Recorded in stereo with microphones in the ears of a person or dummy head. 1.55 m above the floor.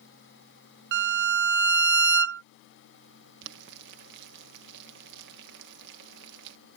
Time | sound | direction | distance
0.9 | a violin | 60° right (ahead or behind) | ?
3.4 | boiling | 70° right (ahead or behind) | ?